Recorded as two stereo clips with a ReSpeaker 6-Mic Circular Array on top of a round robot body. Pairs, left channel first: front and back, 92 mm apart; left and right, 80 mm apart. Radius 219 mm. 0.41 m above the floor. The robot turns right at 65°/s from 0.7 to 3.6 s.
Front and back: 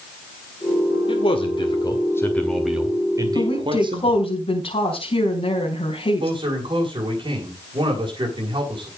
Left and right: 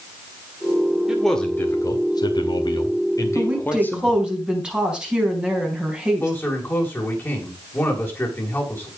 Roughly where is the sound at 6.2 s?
Behind left.